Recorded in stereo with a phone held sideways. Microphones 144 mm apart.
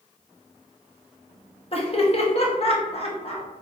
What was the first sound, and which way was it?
Laughter, 45° left (ahead or behind).